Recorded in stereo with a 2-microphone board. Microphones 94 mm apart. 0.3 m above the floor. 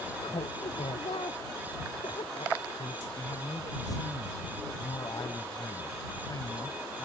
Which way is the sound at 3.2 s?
45° left (ahead or behind).